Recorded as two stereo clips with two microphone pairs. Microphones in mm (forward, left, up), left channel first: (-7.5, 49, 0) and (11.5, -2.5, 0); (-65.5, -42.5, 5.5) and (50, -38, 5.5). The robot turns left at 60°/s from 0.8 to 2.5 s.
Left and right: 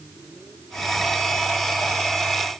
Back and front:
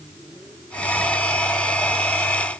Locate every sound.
Only background noise.